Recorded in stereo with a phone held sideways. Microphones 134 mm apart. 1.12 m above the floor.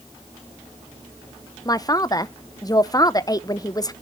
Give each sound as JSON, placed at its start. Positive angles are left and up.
{"t": 1.6, "sound": "a man speaking", "side_deg": 25, "distance_m": 0.7}